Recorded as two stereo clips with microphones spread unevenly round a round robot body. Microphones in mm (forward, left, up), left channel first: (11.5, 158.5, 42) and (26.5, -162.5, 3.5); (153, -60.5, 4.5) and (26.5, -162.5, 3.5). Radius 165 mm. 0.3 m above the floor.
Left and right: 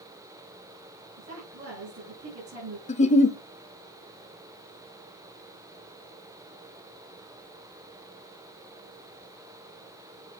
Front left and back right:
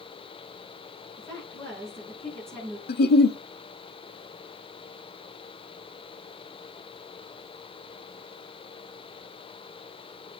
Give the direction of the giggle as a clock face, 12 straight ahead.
11 o'clock.